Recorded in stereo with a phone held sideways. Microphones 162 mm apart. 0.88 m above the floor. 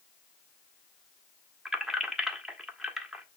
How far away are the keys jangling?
About 1.1 m.